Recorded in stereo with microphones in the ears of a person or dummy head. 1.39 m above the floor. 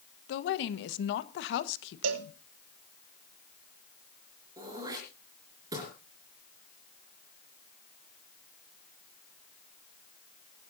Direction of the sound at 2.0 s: 80° right.